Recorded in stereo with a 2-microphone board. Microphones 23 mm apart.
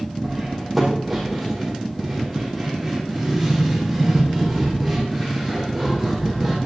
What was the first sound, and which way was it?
Cutlery clinking, centre (ahead or behind).